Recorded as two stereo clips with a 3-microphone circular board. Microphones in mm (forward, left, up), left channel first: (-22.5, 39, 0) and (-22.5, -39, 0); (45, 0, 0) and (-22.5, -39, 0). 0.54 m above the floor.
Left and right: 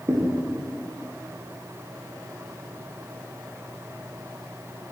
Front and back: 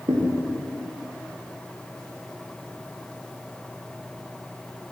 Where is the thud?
140° right, 8.5 m.